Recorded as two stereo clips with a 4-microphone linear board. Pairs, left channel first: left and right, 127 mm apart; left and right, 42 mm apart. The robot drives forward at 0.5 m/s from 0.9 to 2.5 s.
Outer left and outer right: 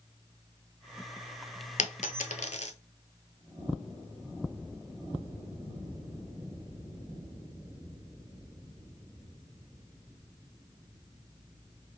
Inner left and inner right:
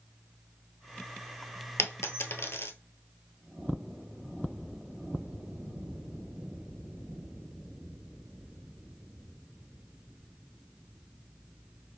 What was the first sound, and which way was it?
A dropped coin, 75° left (ahead or behind).